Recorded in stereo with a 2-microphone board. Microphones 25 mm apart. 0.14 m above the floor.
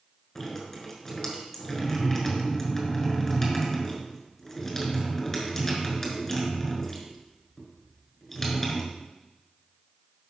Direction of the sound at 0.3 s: 15° left (ahead or behind).